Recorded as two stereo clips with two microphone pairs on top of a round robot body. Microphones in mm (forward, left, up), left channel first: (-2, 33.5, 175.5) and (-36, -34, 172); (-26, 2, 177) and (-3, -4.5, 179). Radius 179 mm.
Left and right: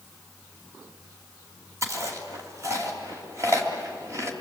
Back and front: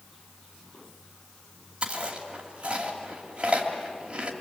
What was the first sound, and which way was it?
Chewing, 65° right.